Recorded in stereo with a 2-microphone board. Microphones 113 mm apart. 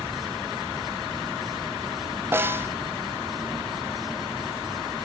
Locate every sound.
2.3 s a snare drum: 20° right (ahead or behind), 1.0 m